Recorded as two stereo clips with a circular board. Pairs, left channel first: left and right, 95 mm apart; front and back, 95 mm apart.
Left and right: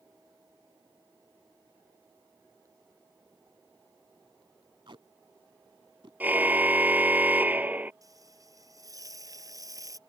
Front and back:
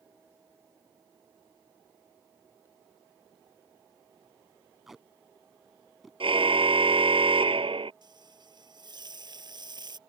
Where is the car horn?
160° right.